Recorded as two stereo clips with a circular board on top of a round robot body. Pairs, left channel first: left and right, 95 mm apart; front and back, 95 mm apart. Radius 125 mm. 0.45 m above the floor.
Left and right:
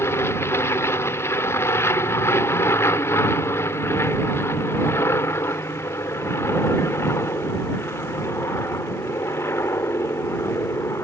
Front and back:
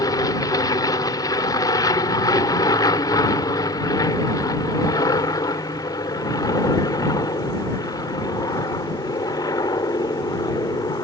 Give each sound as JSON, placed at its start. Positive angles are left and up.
{"t": 0.0, "sound": "an aircraft", "azimuth_deg": 35}